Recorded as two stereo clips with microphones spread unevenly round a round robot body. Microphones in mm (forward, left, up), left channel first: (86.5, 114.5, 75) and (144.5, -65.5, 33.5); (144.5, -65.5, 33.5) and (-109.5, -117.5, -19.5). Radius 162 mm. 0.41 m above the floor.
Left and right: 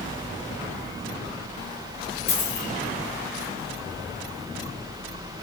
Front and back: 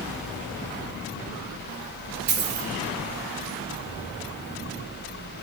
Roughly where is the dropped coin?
Behind left.